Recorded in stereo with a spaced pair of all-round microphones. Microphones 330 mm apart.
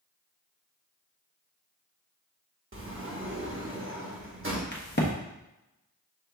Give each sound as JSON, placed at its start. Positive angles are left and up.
{"t": 2.7, "sound": "a sliding door", "side_deg": -40, "distance_m": 0.8}
{"t": 4.7, "sound": "a crack", "side_deg": 30, "distance_m": 1.0}